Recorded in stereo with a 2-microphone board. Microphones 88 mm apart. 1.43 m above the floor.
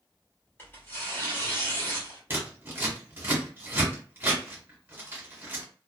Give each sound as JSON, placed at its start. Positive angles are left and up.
{"t": 0.6, "sound": "tearing paper", "side_deg": 25, "distance_m": 1.2}
{"t": 2.3, "sound": "scissors", "side_deg": -25, "distance_m": 1.2}